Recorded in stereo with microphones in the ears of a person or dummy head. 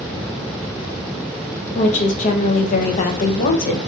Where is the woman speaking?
40° left (ahead or behind), 0.7 m.